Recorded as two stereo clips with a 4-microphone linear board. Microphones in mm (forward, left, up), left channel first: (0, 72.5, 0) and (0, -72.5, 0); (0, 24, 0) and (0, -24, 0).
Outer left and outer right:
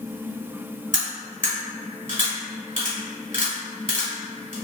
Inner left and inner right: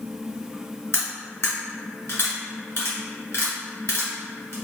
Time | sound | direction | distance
0.9 | cutlery clinking | 60° left (ahead or behind) | 1.4 m